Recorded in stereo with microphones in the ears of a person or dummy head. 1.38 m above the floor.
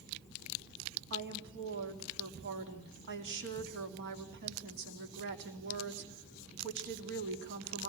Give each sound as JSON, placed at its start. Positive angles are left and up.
{"t": 1.1, "sound": "a woman speaking", "side_deg": -60, "distance_m": 2.5}